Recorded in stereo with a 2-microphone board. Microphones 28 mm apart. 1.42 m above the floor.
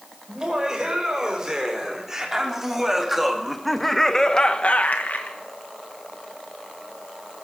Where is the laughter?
25° right (ahead or behind), 5.5 m; by 5.4 s 80° left, 1.3 m.